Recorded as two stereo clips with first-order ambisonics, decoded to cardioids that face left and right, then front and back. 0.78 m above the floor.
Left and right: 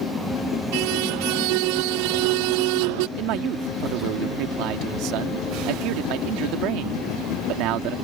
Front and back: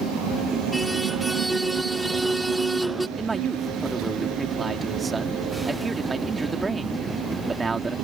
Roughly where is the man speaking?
Right.